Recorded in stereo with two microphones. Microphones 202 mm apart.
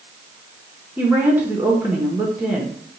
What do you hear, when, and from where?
1.0 s a woman speaking: 10° right (ahead or behind), 1.0 m